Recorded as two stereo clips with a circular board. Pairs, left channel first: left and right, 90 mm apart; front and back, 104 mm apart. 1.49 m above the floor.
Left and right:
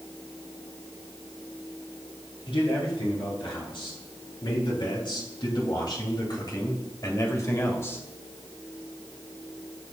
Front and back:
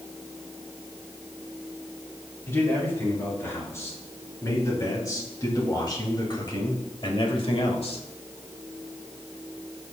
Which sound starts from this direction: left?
A man speaking, at 2.5 s.